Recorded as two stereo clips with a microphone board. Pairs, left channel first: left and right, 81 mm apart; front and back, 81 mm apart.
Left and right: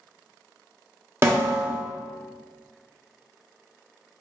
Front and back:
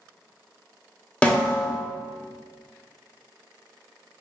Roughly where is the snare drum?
Ahead right.